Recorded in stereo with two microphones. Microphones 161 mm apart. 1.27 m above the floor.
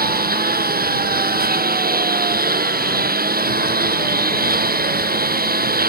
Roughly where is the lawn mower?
Right.